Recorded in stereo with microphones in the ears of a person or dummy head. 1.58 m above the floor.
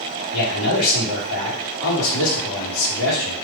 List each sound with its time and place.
0.3 s a man speaking: 75° left (ahead or behind), 1.5 m